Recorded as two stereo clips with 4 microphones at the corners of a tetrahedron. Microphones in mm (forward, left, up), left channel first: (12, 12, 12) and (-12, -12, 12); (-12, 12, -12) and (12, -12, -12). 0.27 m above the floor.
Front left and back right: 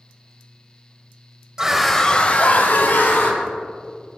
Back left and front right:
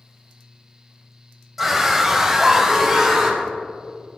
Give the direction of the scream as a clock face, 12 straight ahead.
4 o'clock.